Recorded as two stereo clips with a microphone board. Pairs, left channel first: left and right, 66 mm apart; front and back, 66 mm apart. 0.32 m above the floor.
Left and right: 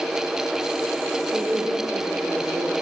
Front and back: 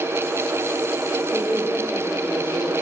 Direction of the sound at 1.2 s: 65° right.